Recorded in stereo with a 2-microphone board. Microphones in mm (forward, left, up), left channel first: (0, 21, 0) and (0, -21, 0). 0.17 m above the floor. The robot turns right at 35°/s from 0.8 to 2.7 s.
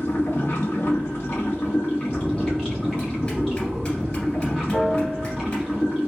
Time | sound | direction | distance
0.0 | running water | 115° left | 1.5 m
2.1 | a bell | 40° left (ahead or behind) | 1.8 m
4.7 | a piano | centre (ahead or behind) | 0.9 m